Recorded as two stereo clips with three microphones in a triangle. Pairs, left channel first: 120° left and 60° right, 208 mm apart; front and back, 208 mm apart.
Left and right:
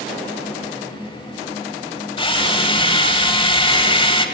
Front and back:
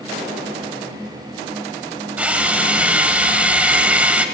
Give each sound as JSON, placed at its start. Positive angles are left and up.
{"t": 2.2, "sound": "a drill", "azimuth_deg": 105, "distance_m": 1.2}